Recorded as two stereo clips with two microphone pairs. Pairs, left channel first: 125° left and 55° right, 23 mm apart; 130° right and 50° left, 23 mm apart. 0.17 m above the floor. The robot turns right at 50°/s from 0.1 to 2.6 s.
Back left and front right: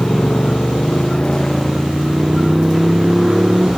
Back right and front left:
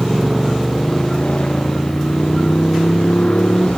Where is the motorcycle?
125° left; by 3.8 s 120° right.